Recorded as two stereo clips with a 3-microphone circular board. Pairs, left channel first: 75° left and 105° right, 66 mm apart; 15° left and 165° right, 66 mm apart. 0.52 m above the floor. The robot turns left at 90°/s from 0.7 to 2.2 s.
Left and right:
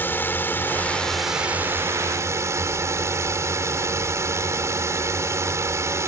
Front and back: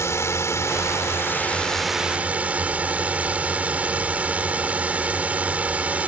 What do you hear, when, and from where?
0.0 s a drone: 30° left; by 6.1 s 105° right